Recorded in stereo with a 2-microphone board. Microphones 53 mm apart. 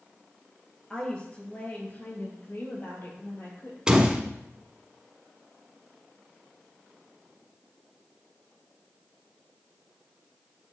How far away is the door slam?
About 1.0 m.